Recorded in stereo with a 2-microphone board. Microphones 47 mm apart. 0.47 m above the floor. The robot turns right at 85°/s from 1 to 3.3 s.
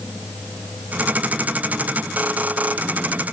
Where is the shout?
I don't hear a shout.